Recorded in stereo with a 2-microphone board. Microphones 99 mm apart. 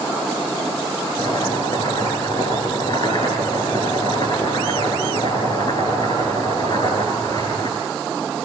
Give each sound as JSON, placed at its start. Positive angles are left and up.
{"t": 1.2, "sound": "chopping", "side_deg": 50, "distance_m": 10.0}